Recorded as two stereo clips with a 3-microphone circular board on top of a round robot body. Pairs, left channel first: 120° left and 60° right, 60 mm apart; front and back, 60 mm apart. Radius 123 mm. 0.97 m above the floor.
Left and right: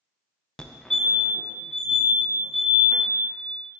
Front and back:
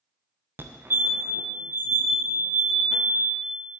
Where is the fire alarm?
170° right, 1.7 m.